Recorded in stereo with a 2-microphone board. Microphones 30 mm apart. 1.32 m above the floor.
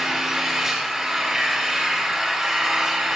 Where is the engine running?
25° right (ahead or behind), 4 m.